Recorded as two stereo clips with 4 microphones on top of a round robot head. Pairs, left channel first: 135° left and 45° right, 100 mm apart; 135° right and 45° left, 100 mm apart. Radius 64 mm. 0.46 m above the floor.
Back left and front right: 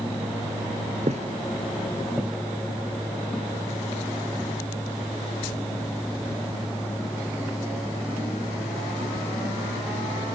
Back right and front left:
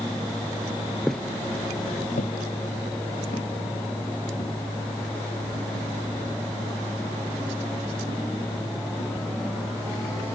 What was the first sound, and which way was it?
Footsteps, 45° right.